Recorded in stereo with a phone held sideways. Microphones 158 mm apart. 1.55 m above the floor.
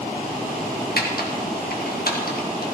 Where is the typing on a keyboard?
75° left (ahead or behind), 2 m.